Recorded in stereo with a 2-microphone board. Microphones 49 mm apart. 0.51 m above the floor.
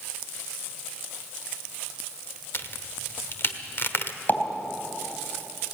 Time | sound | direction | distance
2.5 | a crack | 55° left (ahead or behind) | 1.1 m
4.3 | a pop | 40° left (ahead or behind) | 3.5 m